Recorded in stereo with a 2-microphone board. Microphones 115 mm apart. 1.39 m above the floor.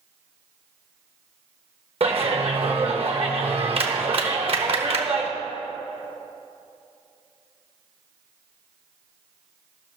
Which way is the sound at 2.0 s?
55° right (ahead or behind).